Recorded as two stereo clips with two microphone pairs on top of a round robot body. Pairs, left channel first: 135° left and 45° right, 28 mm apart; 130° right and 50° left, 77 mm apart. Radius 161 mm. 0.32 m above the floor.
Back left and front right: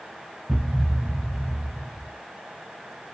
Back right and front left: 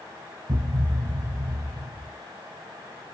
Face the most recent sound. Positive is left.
turn(degrees=20)